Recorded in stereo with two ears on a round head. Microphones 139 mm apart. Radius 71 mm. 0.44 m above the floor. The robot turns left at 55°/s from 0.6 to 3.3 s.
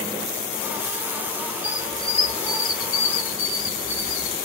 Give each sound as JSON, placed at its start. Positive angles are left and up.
{"t": 1.6, "sound": "a squeak", "azimuth_deg": 170, "distance_m": 1.2}